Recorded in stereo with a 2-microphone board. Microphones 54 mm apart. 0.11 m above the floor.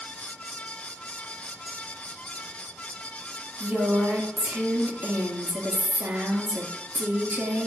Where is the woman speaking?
50° right (ahead or behind), 1.6 m.